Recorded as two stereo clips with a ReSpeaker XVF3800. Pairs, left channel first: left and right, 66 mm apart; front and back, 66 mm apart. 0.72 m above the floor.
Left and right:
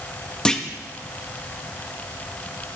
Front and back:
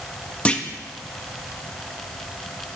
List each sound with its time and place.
0.5 s a clunk: 30° left, 0.8 m